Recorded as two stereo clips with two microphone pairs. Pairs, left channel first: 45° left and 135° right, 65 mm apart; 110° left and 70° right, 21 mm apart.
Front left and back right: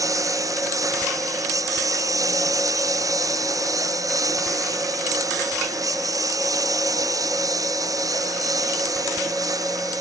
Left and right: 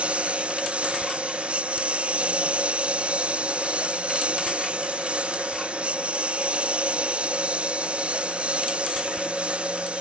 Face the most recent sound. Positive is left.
turn(degrees=-105)